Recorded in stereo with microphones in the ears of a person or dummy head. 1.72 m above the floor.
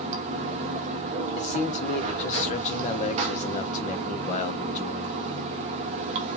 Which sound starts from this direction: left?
A man speaking, at 1.4 s.